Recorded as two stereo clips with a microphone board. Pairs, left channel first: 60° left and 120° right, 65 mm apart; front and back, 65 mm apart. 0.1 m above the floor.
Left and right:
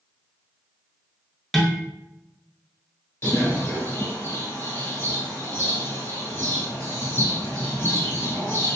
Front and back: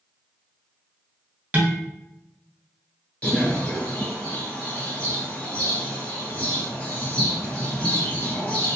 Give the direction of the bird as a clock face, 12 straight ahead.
10 o'clock.